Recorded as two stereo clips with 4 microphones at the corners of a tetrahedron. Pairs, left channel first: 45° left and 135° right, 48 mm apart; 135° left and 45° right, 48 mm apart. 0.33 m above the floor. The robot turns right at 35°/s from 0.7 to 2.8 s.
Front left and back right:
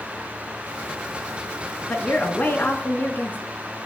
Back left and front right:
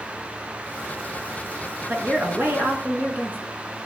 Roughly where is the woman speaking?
Ahead right.